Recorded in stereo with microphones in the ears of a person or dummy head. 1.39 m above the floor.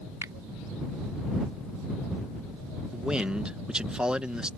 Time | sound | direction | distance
0.2 | a finger snap | 15° right (ahead or behind) | ?
2.9 | a man speaking | 10° right (ahead or behind) | ?